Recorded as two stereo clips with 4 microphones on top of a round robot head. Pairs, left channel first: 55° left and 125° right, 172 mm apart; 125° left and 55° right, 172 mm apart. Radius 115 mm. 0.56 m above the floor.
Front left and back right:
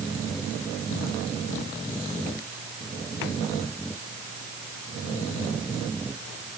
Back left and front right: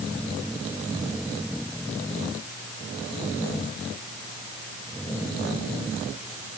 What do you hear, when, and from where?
Only background noise.